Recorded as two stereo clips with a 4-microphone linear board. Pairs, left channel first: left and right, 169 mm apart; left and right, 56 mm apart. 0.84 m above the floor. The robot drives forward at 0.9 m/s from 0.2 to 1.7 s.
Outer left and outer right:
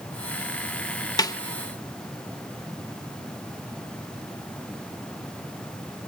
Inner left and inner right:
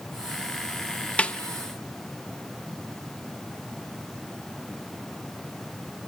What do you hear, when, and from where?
1.2 s a snare drum: 25° left (ahead or behind), 1.0 m; by 1.4 s 20° left (ahead or behind), 1.1 m